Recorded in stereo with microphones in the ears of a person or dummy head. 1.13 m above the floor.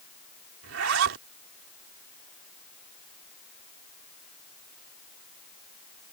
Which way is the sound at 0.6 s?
70° right (ahead or behind).